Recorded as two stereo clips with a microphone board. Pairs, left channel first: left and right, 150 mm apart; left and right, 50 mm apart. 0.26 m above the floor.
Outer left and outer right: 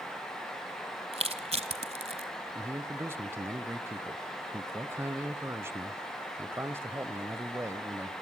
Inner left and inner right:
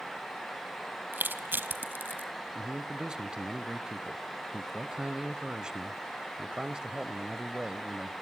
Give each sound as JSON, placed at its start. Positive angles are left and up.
{"t": 1.1, "sound": "crushing", "side_deg": -45, "distance_m": 1.4}
{"t": 2.5, "sound": "a man speaking", "side_deg": -15, "distance_m": 0.9}